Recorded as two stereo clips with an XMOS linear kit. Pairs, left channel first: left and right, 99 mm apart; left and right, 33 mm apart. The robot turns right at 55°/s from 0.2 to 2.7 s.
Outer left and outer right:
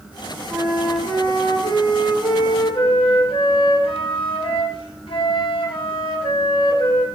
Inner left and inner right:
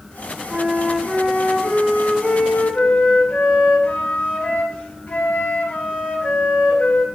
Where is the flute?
5° right, 3 m; by 7.0 s 115° left, 3 m.